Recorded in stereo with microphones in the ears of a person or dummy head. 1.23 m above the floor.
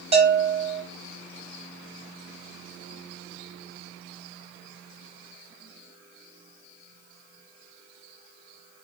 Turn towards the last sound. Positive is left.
turn(degrees=-35)  # may be behind; listen again after turning